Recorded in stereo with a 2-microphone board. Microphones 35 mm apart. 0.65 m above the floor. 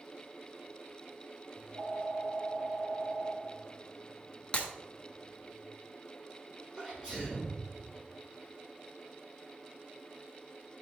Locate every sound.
1.6 s a phone ringing: 65° right (ahead or behind), 1.5 m
4.5 s breaking glass: 30° left (ahead or behind), 1.4 m
6.8 s a sneeze: 30° right (ahead or behind), 3.5 m